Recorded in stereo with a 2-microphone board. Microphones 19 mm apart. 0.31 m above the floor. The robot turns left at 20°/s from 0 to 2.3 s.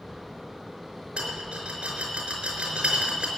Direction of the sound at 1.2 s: 65° right (ahead or behind).